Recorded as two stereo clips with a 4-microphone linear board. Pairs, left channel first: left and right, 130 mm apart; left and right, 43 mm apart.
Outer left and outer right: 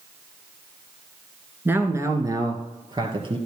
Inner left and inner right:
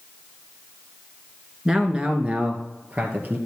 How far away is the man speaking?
About 1.5 m.